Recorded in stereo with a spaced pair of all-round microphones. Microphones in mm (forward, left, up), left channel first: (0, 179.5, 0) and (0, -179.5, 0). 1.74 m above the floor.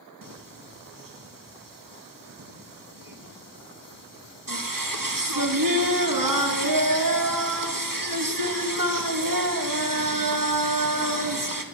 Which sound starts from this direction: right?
Singing, at 0.2 s.